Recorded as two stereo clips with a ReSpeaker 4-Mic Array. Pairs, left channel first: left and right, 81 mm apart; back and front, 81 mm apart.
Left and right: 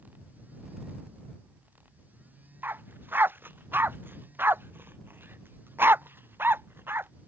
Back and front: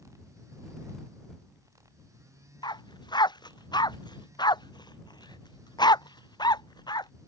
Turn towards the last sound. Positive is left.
turn(degrees=-155)